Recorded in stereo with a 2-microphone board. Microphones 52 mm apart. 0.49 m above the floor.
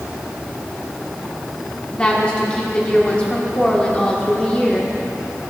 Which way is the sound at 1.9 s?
20° left (ahead or behind).